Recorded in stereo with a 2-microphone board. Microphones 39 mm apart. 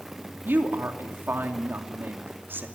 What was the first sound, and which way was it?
A woman speaking, 80° right.